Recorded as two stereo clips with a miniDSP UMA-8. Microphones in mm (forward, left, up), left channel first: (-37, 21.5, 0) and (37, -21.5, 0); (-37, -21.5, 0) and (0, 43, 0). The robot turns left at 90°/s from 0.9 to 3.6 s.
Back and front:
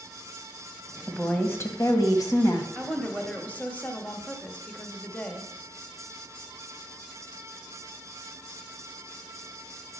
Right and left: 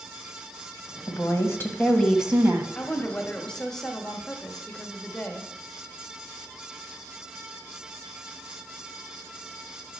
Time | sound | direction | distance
1.1 | a woman speaking | 120° right | 1.4 m
2.8 | a woman speaking | 115° right | 1.2 m